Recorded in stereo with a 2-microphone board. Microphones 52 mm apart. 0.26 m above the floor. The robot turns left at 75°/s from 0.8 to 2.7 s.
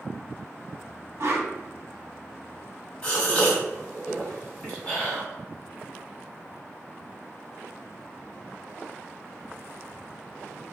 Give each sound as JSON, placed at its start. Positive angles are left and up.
{"t": 1.2, "sound": "a whoosh", "side_deg": -65, "distance_m": 0.5}
{"t": 3.0, "sound": "a gasp", "side_deg": 20, "distance_m": 1.7}